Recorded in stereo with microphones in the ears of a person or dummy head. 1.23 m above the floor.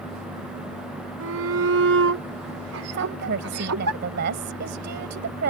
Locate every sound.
1.2 s a shout: 80° right; by 3.9 s 75° right (ahead or behind)
2.9 s a woman speaking: 55° right (ahead or behind)